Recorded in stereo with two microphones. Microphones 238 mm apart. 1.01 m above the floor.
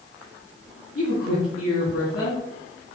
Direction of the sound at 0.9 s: 65° left (ahead or behind).